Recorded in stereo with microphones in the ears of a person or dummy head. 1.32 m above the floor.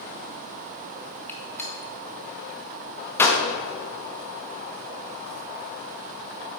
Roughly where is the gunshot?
Centre.